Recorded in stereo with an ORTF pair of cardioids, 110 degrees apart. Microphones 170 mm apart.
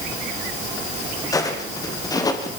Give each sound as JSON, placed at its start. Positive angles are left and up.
{"t": 1.3, "sound": "footsteps", "azimuth_deg": 20, "distance_m": 5.0}